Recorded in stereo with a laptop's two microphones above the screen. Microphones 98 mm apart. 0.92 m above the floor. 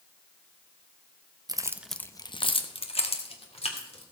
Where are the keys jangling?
40° right (ahead or behind), 0.7 m; by 4.0 s 85° left, 2.5 m.